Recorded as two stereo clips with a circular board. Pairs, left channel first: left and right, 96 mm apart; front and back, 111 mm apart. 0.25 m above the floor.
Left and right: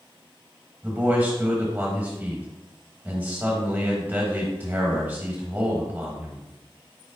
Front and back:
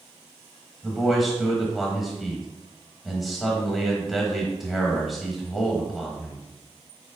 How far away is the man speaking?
About 1.3 m.